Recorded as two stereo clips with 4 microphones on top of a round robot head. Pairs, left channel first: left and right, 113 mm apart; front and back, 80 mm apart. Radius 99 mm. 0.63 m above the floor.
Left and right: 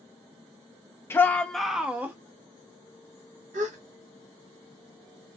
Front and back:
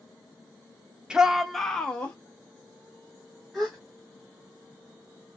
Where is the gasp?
90° right, 0.6 m.